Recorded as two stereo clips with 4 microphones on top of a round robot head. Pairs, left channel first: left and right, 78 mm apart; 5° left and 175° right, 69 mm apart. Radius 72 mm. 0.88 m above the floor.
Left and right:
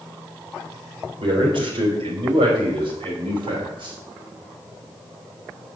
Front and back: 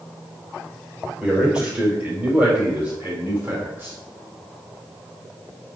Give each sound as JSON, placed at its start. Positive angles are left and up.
{"t": 1.2, "sound": "a man speaking", "azimuth_deg": -95, "distance_m": 4.0}